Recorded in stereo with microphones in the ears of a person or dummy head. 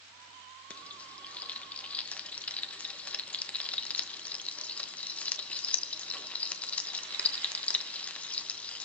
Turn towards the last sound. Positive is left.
turn(degrees=5)  # may be behind; listen again after turning